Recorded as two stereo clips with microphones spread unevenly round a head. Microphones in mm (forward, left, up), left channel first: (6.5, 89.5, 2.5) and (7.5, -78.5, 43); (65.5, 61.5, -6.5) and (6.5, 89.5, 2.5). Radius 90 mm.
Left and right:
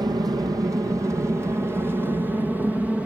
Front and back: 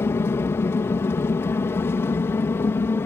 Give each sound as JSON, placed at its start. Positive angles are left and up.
{"t": 0.0, "sound": "an aircraft", "azimuth_deg": -20}